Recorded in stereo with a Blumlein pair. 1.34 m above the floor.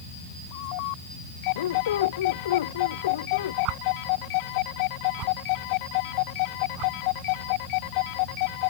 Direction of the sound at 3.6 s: 40° right.